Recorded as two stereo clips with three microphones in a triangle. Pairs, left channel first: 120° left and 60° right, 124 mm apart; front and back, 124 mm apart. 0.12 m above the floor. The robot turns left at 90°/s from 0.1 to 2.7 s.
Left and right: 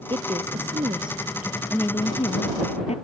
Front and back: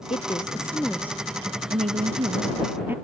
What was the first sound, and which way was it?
A woman speaking, 15° right.